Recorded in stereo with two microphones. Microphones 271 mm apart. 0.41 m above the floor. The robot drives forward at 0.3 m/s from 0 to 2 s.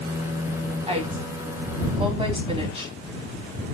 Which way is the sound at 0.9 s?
20° right (ahead or behind).